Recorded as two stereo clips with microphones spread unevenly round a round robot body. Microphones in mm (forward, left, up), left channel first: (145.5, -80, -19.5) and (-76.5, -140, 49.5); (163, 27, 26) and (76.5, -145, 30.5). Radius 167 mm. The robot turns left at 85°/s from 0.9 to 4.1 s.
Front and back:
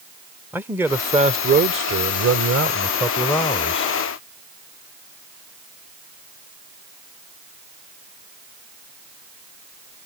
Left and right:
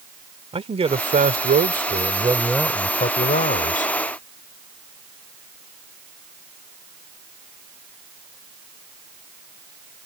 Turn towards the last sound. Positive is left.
turn(degrees=20)